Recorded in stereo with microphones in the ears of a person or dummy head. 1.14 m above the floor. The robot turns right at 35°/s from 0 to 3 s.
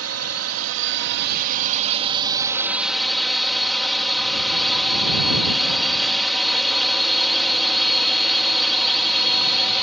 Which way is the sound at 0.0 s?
100° right.